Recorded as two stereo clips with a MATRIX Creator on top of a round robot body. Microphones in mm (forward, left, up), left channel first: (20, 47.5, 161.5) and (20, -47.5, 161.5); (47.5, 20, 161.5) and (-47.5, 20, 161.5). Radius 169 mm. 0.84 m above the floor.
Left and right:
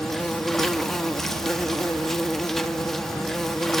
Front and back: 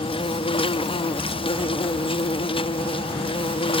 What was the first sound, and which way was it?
An insect, 5° left.